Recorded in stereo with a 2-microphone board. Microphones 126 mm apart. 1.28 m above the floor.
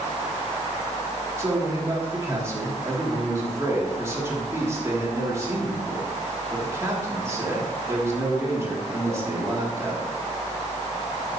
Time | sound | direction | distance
1.4 | a man speaking | 25° right (ahead or behind) | 3 m